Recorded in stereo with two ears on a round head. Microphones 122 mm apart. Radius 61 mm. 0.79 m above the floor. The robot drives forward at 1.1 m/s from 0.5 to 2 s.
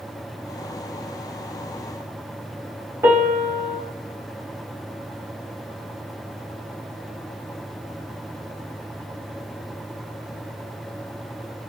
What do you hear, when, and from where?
3.0 s a piano: 15° right (ahead or behind), 2.5 m